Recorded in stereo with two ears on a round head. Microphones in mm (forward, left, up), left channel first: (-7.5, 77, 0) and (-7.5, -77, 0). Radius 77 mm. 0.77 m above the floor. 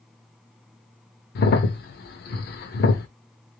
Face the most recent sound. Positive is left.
turn(degrees=60)  # may be behind; listen again after turning